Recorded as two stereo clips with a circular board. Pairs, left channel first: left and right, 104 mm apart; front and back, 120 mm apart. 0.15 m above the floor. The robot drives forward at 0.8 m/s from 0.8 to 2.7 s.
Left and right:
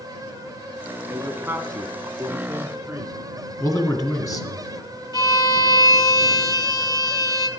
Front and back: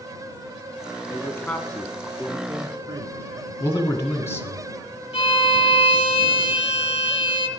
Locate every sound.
1.1 s a man speaking: 40° right, 1.2 m; by 3.2 s 150° right, 1.4 m
3.6 s a man speaking: 55° left, 1.9 m
5.1 s a violin: 35° left, 1.0 m